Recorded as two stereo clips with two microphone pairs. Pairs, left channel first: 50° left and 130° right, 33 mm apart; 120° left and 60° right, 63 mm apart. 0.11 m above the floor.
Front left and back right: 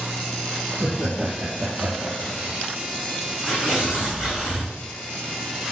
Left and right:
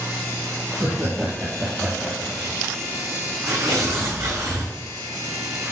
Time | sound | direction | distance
0.7 | laughter | 100° right | 3 m
3.5 | tearing paper | 55° right | 5 m